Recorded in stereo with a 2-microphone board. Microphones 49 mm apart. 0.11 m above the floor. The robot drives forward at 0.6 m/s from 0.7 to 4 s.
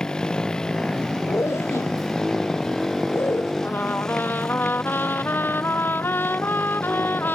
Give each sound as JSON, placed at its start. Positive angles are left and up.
{"t": 0.0, "sound": "a motorcycle", "side_deg": 15}
{"t": 1.3, "sound": "a zipper", "side_deg": 65}
{"t": 3.6, "sound": "a trumpet", "side_deg": 50}